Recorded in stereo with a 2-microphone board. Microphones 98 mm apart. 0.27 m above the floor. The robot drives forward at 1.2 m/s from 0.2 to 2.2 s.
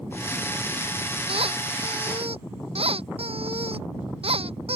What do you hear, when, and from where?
1.3 s a squeak: 80° right; by 4.8 s 85° right